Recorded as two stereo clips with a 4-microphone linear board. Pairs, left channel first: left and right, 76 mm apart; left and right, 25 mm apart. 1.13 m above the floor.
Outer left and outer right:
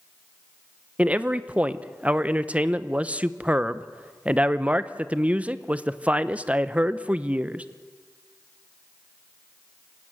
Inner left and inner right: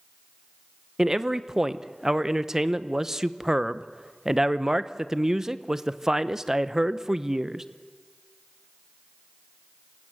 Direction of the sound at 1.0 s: 20° right (ahead or behind).